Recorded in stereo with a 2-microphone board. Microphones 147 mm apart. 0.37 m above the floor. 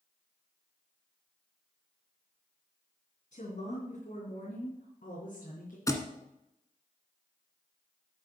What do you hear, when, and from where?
3.3 s a woman speaking: 65° left (ahead or behind), 3.5 m; by 5.8 s 75° left (ahead or behind), 4 m
5.9 s a thud: 25° left (ahead or behind), 1.5 m